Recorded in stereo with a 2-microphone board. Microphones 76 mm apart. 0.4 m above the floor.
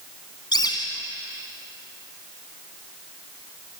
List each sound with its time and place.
0.5 s a bird: 60° left (ahead or behind), 2.5 m